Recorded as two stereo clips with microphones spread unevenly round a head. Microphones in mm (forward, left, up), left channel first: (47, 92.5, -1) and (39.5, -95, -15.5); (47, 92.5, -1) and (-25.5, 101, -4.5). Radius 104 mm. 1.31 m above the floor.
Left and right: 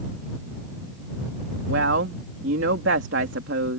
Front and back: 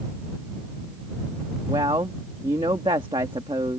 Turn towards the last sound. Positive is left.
turn(degrees=-130)